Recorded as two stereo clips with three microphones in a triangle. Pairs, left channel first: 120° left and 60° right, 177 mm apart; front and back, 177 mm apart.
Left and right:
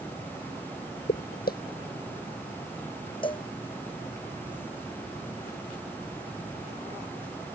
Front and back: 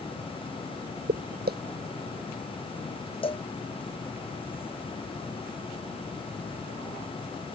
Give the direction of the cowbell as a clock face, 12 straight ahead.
10 o'clock.